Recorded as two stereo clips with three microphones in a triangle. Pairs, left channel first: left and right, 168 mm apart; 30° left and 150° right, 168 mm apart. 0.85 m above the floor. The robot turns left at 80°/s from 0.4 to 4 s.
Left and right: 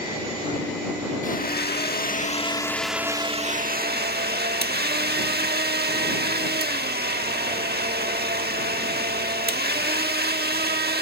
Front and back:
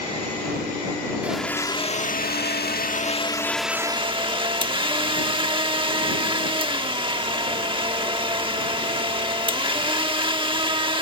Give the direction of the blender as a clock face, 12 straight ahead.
8 o'clock.